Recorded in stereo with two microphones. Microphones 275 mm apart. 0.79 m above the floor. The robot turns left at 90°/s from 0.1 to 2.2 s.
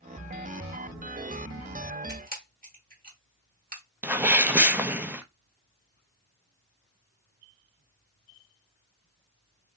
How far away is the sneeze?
About 0.6 m.